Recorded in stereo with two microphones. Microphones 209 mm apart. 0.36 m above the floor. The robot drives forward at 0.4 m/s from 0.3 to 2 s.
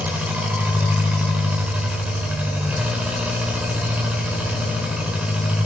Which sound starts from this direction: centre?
An engine running, at 0.0 s.